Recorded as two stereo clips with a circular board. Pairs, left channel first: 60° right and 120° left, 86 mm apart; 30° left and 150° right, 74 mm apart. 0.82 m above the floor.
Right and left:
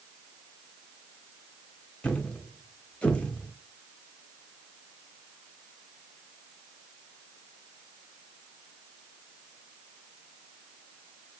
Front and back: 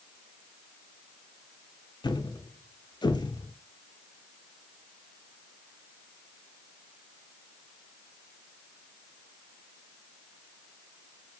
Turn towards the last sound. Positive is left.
turn(degrees=15)